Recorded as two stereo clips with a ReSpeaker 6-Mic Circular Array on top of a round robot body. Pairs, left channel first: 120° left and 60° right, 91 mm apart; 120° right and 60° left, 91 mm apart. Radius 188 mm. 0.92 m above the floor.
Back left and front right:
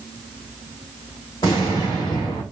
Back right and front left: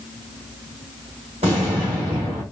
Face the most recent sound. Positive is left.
turn(degrees=70)